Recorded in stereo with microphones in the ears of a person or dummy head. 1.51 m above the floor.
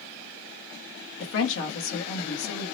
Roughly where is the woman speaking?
Left.